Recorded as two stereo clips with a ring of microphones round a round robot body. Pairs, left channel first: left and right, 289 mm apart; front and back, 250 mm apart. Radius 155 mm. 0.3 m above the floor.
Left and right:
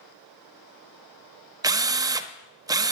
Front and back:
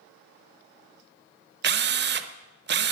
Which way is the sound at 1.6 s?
165° right.